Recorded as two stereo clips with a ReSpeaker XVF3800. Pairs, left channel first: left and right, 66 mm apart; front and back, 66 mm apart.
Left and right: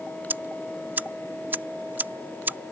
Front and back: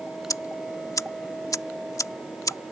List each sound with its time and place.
0.3 s ticking: 30° right